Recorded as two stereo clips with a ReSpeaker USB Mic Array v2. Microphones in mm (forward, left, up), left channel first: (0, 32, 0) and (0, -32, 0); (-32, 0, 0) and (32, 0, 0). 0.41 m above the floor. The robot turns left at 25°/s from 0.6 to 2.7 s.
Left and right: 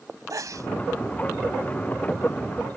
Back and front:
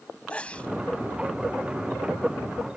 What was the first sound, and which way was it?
A sneeze, 110° right.